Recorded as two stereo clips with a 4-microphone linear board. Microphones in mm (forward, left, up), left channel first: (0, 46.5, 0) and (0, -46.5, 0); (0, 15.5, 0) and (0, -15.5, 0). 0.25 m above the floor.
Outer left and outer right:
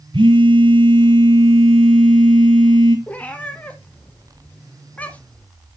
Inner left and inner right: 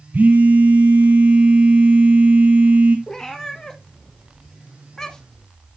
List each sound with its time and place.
0.1 s a phone buzzing: 60° right (ahead or behind), 2.5 m
3.1 s a cat meowing: 15° left (ahead or behind), 1.0 m